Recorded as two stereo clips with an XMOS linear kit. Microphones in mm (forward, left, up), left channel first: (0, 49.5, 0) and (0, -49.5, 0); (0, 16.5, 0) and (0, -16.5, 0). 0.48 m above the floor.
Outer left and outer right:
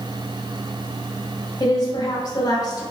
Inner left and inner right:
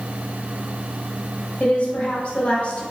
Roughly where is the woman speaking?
Left.